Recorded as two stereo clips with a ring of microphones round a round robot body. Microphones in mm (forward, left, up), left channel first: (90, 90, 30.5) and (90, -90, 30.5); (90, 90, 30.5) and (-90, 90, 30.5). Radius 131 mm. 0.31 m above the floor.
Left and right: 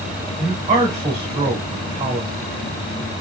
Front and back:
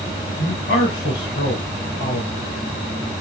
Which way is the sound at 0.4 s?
45° right.